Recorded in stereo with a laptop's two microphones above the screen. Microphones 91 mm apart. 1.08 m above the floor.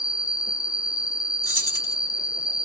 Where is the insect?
45° left (ahead or behind), 1.1 m.